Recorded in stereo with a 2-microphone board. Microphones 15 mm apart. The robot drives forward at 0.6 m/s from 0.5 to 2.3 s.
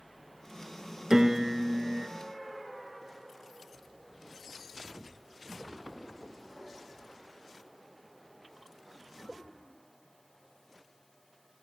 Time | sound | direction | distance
1.1 | a piano | 60° right (ahead or behind) | 1.0 m